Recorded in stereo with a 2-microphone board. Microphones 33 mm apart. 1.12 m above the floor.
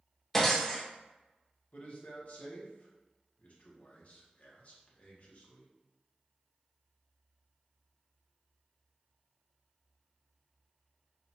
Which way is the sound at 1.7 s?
50° left (ahead or behind).